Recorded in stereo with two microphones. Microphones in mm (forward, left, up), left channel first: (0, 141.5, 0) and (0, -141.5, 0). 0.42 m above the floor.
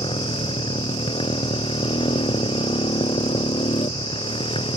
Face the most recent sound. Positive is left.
turn(degrees=20)  # may be behind; listen again after turning